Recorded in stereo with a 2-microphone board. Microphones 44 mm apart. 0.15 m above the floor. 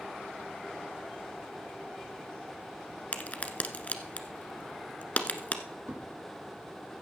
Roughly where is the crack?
Left.